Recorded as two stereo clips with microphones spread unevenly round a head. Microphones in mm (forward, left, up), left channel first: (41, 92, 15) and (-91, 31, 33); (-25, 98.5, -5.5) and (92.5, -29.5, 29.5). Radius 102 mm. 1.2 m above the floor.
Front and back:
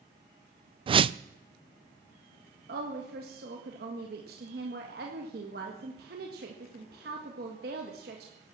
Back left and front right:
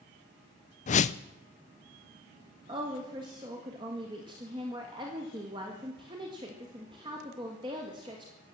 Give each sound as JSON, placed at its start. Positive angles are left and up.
{"t": 0.9, "sound": "a whoosh", "azimuth_deg": 150, "distance_m": 0.5}
{"t": 2.7, "sound": "a woman speaking", "azimuth_deg": -120, "distance_m": 1.7}